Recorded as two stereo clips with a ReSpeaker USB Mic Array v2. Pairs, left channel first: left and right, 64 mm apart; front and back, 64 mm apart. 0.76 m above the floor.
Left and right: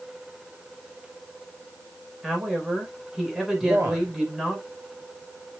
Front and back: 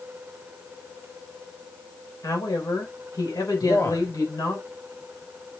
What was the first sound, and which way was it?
A woman speaking, 10° right.